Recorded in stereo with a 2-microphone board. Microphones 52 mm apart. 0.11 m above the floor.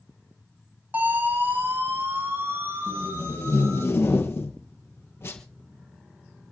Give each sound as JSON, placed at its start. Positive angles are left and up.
{"t": 0.9, "sound": "a siren", "side_deg": -35, "distance_m": 5.5}
{"t": 2.9, "sound": "tape being pulled", "side_deg": 55, "distance_m": 3.0}